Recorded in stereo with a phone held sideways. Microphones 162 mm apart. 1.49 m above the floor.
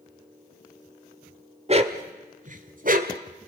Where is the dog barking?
40° right (ahead or behind), 1.6 m; by 3.2 s 60° right (ahead or behind), 2 m.